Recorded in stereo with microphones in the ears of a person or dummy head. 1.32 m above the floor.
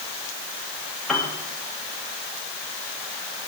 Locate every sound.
1.1 s a piano: 5° left (ahead or behind), 1.8 m